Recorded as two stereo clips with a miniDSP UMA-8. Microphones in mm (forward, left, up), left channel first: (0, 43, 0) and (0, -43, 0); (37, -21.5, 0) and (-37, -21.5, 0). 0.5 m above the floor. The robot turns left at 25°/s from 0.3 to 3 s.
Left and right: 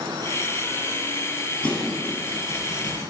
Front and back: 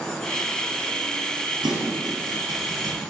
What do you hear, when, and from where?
1.6 s a thud: 170° left, 3 m; by 3.0 s 135° left, 3 m